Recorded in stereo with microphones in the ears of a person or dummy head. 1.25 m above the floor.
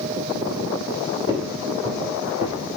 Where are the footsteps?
10° right (ahead or behind), 1.4 m.